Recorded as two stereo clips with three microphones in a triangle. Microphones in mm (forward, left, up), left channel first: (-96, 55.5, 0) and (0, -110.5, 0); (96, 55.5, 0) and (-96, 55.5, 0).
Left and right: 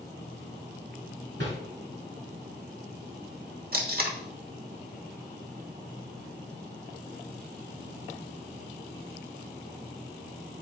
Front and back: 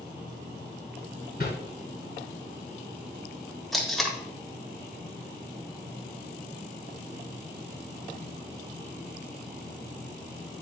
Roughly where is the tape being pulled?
Right.